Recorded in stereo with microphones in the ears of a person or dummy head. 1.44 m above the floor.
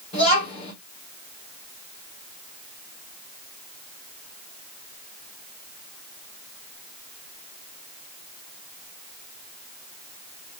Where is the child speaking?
35° left (ahead or behind), 3.5 m.